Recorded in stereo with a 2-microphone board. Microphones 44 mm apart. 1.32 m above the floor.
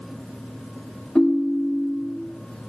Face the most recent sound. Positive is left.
turn(degrees=15)  # may be behind; listen again after turning